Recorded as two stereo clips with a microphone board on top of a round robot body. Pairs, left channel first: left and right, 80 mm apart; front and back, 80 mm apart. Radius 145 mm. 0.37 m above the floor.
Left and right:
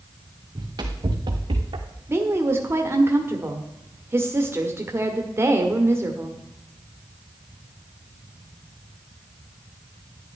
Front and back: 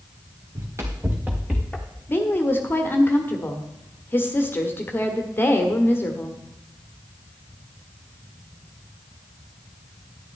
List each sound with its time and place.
0.6 s running footsteps: 130° right, 2 m; by 1.9 s 75° right, 1.5 m
2.1 s a woman speaking: 50° right, 1.5 m